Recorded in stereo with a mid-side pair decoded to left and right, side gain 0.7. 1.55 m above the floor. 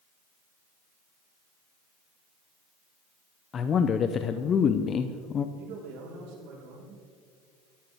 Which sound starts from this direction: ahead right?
A man speaking, at 5.5 s.